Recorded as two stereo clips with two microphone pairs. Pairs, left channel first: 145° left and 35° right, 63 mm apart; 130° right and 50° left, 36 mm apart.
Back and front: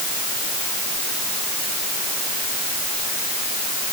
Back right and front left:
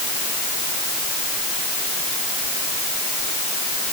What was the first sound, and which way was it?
Only background noise.